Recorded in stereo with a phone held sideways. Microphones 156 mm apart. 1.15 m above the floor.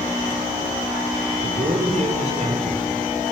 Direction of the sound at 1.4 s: 45° right (ahead or behind).